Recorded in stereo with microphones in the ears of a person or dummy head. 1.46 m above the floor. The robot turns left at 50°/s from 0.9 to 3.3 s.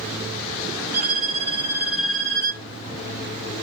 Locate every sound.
0.9 s a violin: 130° right, 1.8 m; by 2.6 s 145° left, 1.8 m